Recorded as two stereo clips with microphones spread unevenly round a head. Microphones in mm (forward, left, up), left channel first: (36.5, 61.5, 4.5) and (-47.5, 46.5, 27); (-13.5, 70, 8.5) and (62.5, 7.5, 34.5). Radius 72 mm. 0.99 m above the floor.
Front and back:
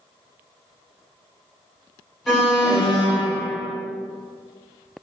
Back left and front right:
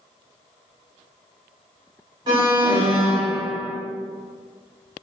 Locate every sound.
2.3 s an alarm: 45° right, 1.2 m